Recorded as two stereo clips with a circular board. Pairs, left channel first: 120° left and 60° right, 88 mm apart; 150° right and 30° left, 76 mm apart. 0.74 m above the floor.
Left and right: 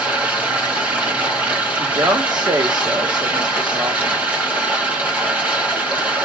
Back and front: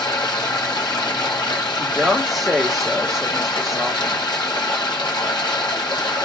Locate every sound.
0.0 s running water: 130° right, 1.6 m
1.8 s a woman speaking: 60° right, 1.1 m